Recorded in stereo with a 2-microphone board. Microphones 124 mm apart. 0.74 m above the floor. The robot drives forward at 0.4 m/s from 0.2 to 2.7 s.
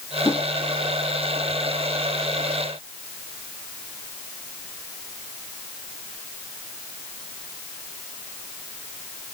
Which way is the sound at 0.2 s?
25° left (ahead or behind).